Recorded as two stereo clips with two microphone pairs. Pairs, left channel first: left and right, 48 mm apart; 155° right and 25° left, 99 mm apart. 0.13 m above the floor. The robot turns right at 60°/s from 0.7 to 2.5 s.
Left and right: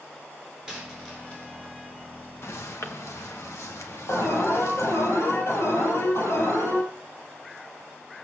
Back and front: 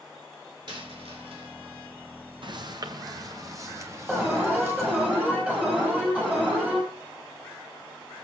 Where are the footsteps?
65° left, 2.5 m; by 5.1 s 95° left, 5 m.